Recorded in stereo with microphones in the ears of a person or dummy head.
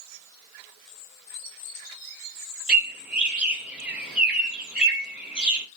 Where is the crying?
No crying in this recording.